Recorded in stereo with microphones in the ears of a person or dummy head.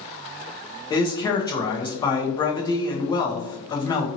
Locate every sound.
0.9 s a man speaking: 20° left (ahead or behind), 0.8 m